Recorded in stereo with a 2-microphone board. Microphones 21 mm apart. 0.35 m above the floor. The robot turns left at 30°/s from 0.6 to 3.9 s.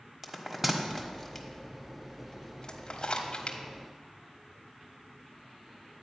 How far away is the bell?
About 1.3 m.